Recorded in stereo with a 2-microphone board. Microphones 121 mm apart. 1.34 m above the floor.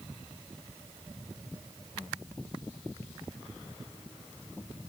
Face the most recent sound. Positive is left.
No sound to turn to.